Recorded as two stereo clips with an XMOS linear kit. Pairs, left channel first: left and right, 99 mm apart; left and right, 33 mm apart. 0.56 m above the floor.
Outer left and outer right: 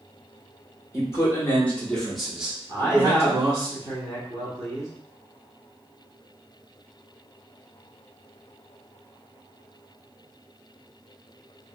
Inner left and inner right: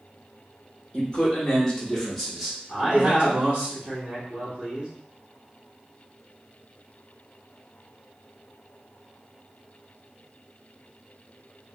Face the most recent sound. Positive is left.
turn(degrees=-45)  # may be behind; listen again after turning